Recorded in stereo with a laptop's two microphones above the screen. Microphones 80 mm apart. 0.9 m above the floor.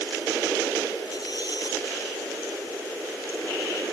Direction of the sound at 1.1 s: 60° left (ahead or behind).